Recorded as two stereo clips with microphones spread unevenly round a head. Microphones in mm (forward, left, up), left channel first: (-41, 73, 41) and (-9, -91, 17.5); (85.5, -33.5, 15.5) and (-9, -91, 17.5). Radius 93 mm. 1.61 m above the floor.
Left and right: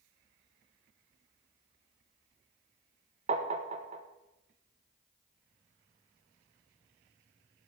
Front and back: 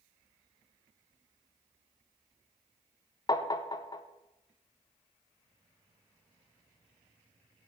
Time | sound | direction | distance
3.3 | tapping | 20° right | 0.8 m